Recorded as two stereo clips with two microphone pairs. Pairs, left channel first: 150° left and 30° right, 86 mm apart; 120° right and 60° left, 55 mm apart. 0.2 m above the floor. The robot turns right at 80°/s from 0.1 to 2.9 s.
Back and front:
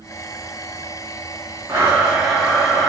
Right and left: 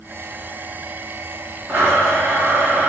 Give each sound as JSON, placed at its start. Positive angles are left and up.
{"t": 1.7, "sound": "a blender", "azimuth_deg": 15, "distance_m": 1.8}